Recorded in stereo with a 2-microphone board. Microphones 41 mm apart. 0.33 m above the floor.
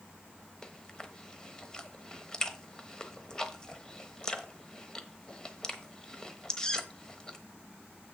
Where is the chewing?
20° left (ahead or behind), 1.0 m.